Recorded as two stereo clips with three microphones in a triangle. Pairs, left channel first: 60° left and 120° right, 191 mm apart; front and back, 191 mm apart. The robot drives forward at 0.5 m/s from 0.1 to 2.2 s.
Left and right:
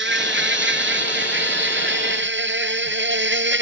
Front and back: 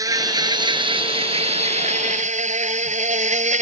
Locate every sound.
0.0 s an insect: 110° right; by 3.6 s 130° right